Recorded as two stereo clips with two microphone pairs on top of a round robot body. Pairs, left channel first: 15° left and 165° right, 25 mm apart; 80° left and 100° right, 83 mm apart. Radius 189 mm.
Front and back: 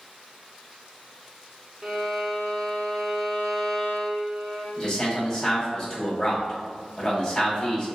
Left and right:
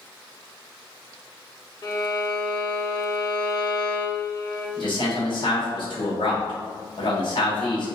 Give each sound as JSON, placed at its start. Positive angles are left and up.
{"t": 1.8, "sound": "a violin", "azimuth_deg": 115, "distance_m": 0.9}
{"t": 4.8, "sound": "a man speaking", "azimuth_deg": 80, "distance_m": 1.8}